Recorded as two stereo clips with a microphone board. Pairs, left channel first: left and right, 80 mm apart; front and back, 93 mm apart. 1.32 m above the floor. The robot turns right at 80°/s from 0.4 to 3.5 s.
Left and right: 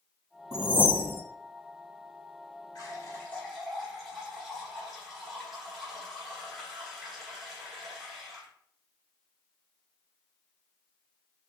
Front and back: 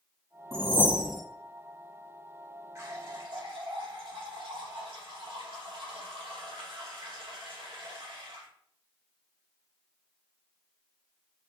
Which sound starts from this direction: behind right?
A whoosh, at 0.5 s.